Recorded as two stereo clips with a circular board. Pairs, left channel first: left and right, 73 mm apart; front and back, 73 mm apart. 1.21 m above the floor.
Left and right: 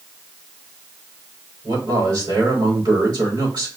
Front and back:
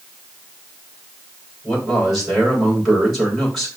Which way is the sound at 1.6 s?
90° right.